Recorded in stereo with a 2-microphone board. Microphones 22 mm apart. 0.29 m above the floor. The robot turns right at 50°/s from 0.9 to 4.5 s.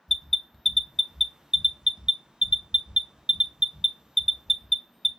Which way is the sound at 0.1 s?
5° left (ahead or behind).